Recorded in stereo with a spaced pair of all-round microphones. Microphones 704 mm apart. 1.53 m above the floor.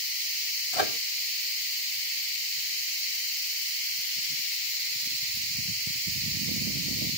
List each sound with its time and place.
0.7 s a microwave: 55° left (ahead or behind)